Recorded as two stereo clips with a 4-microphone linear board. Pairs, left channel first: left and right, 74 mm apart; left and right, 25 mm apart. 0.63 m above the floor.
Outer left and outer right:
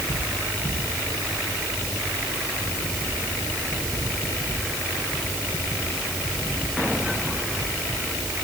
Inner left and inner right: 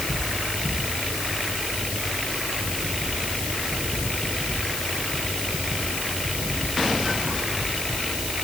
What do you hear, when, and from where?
Only background noise.